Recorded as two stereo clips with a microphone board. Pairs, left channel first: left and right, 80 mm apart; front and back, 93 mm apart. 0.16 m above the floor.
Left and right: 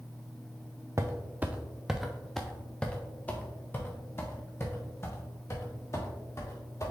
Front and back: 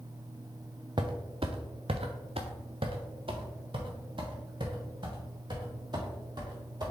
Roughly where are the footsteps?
Behind right.